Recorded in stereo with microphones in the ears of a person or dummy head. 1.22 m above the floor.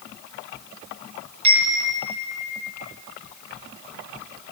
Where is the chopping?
I don't hear chopping.